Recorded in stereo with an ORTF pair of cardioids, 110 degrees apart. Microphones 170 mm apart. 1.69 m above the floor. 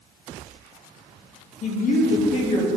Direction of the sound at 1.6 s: 50° left.